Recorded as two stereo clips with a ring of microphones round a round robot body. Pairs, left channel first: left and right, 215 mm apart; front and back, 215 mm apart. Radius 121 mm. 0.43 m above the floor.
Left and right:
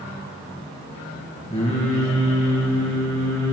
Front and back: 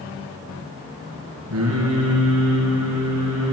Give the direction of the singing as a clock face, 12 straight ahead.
7 o'clock.